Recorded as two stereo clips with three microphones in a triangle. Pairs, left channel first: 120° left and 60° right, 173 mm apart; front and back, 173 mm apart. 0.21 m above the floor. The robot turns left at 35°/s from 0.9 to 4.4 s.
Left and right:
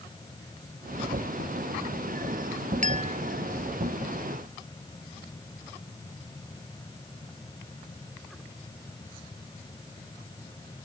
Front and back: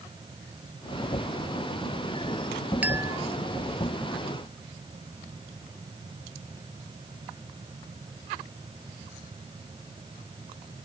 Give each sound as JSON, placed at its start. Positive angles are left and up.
{"t": 2.8, "sound": "a clink", "azimuth_deg": -100}